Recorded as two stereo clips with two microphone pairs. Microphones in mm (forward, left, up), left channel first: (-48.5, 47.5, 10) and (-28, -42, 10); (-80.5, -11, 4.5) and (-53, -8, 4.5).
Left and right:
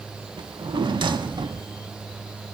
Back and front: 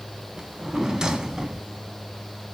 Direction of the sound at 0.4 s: 65° right.